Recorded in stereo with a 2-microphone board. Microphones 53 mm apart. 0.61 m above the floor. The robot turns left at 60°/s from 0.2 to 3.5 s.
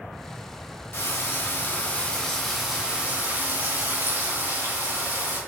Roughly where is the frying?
Left.